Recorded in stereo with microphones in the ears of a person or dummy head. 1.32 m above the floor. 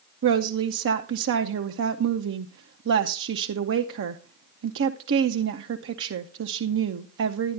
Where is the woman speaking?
60° right (ahead or behind), 0.6 m.